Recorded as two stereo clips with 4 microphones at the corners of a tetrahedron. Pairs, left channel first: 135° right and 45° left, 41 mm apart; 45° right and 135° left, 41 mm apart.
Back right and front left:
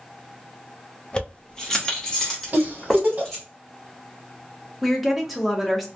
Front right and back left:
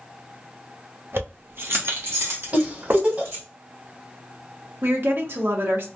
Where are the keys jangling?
155° left, 0.6 m; by 3.4 s 140° left, 1.7 m.